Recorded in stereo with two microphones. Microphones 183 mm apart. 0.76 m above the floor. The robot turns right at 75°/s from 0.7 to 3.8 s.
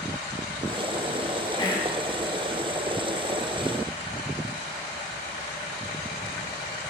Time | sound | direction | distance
1.6 | whispering | 25° left (ahead or behind) | 0.8 m